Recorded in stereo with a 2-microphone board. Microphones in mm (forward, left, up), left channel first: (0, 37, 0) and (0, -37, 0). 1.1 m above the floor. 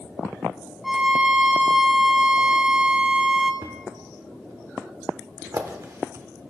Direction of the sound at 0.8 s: 5° right (ahead or behind).